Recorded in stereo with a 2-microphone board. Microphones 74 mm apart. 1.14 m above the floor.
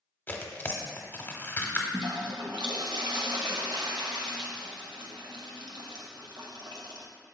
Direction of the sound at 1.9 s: 70° right (ahead or behind).